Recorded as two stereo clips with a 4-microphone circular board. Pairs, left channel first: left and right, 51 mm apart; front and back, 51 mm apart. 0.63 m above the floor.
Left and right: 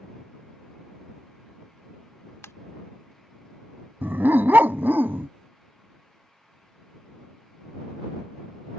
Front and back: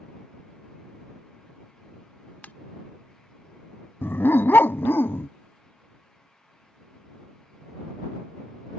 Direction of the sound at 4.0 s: 45° right.